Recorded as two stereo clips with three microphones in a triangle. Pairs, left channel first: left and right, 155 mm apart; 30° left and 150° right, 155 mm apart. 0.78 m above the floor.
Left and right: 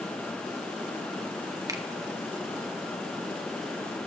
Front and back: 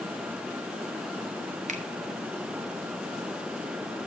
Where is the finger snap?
155° right, 1.3 m.